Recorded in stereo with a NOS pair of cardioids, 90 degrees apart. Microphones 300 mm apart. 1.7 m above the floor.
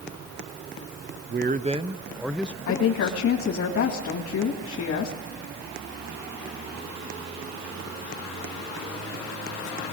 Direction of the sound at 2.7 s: 55° left.